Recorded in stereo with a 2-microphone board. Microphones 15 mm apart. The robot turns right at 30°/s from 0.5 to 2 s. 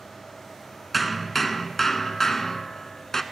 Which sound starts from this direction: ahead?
Hammering, at 0.9 s.